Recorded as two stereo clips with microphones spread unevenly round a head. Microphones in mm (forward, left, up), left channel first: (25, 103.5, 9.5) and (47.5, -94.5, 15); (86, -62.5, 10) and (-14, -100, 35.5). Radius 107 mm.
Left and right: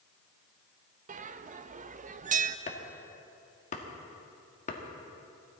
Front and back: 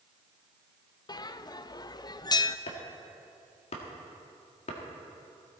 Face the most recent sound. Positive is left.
turn(degrees=45)